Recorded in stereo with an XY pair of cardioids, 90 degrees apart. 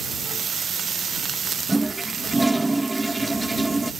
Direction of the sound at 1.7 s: 20° right.